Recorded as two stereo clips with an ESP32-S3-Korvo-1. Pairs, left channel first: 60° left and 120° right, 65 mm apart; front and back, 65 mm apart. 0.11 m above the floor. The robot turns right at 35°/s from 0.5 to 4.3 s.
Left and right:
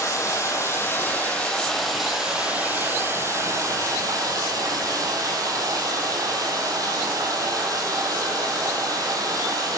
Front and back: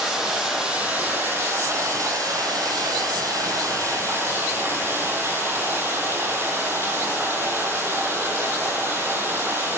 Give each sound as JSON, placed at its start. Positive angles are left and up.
{"t": 0.0, "sound": "running water", "azimuth_deg": 100, "distance_m": 1.3}